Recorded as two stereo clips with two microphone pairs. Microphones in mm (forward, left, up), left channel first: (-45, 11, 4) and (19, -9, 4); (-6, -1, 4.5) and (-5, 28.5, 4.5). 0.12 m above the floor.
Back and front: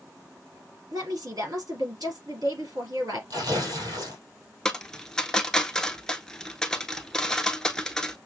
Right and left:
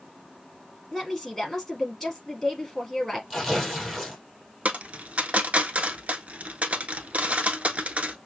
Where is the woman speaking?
10° right, 3 m.